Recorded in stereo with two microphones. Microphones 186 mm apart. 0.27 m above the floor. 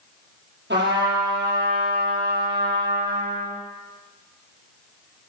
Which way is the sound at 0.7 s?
75° right (ahead or behind).